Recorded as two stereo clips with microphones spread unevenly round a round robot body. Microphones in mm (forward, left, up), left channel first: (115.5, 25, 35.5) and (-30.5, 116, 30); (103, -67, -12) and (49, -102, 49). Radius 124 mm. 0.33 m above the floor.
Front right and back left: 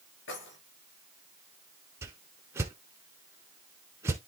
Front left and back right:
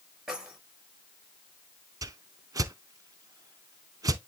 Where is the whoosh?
130° right, 0.6 m.